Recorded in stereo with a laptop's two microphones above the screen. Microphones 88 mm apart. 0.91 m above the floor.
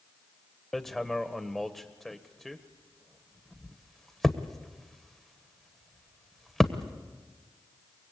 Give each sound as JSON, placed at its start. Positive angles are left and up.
{"t": 0.7, "sound": "hammering", "side_deg": 5, "distance_m": 1.2}